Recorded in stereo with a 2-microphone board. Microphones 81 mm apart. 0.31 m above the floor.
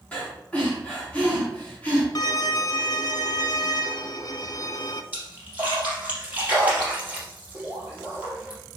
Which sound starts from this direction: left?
A violin, at 2.1 s.